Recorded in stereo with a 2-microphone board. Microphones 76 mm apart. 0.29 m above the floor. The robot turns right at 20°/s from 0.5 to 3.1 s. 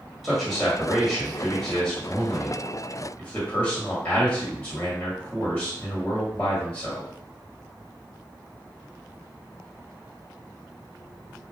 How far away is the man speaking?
About 1.5 m.